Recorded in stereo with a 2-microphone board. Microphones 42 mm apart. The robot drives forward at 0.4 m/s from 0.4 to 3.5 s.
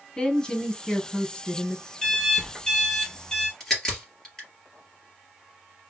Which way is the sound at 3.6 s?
15° left (ahead or behind).